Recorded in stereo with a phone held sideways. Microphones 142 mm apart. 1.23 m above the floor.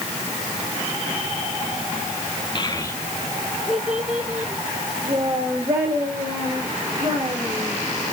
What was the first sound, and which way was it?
A child speaking, 35° left (ahead or behind).